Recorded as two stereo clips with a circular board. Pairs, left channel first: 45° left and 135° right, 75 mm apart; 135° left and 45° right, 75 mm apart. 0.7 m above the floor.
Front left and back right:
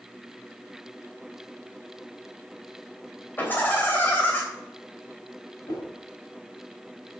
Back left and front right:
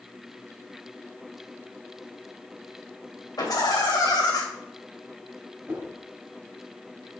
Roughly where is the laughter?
Left.